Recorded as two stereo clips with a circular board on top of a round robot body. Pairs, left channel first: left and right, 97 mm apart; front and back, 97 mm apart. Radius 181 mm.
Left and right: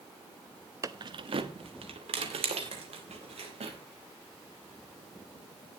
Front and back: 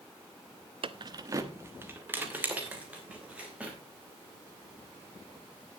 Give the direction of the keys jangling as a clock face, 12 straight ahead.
5 o'clock.